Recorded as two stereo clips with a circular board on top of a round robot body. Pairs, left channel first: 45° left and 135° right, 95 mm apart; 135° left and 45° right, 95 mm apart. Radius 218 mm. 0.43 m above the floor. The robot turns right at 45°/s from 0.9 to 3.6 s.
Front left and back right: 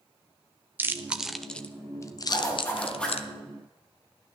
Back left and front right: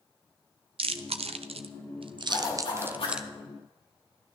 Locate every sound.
0.8 s chewing: 65° right, 0.8 m; by 3.3 s 40° left, 0.8 m
2.3 s a zipper: 90° left, 6 m; by 3.2 s 130° left, 6 m